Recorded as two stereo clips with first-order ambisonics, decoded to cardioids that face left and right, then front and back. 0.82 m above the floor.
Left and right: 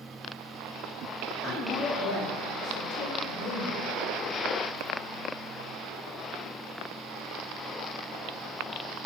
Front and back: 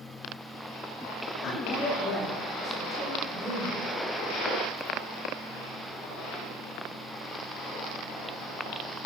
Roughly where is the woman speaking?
Ahead left.